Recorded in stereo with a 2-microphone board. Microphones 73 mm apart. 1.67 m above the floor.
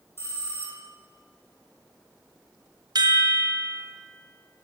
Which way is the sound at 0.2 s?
35° left (ahead or behind).